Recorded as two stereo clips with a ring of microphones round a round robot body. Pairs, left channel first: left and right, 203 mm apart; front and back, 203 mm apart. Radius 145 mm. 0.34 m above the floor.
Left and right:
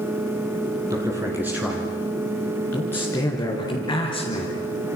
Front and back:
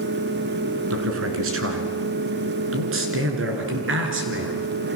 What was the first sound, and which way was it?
A man speaking, 170° right.